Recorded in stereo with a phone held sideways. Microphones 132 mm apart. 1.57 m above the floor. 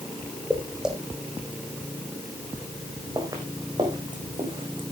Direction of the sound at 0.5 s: Centre (ahead or behind).